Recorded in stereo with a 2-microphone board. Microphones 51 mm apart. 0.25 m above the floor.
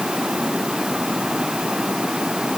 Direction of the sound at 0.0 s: 15° right (ahead or behind).